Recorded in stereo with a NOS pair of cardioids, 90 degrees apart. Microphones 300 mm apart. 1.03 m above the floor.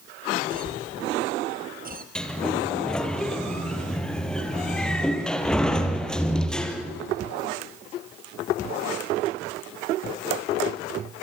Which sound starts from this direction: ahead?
A sliding door, at 2.1 s.